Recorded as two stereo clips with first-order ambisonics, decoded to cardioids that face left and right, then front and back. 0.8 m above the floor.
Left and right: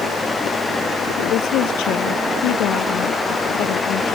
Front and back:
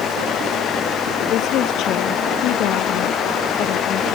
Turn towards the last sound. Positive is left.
turn(degrees=45)